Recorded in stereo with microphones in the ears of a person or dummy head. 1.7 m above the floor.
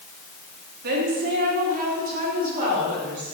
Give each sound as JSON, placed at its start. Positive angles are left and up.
{"t": 0.8, "sound": "a woman speaking", "side_deg": -55, "distance_m": 3.5}